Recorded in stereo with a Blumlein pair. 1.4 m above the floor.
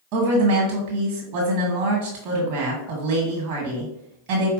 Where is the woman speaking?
45° right, 1.5 m.